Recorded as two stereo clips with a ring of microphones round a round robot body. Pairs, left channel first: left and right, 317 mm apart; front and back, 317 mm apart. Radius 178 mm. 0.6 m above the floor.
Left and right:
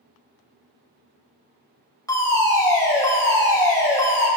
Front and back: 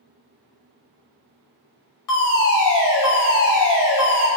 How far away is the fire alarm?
About 4.5 m.